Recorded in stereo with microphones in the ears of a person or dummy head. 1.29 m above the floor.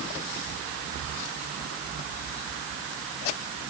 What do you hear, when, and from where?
Only background noise.